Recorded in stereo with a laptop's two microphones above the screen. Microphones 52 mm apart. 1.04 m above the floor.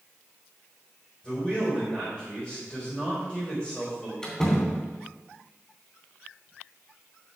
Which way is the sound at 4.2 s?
15° left (ahead or behind).